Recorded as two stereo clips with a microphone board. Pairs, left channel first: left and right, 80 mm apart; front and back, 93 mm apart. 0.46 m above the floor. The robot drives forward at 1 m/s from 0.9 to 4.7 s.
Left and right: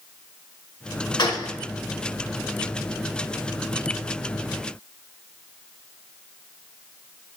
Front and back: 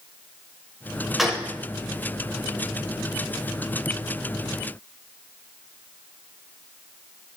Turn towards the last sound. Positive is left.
turn(degrees=165)